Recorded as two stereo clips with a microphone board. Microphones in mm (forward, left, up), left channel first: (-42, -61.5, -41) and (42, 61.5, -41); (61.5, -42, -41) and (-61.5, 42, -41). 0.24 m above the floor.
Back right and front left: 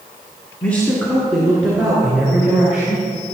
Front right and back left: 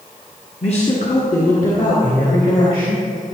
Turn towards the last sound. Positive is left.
turn(degrees=-20)